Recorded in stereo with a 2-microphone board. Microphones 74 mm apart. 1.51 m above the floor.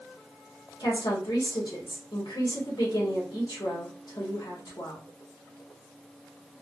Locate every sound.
0.8 s a woman speaking: 75° left (ahead or behind), 1.7 m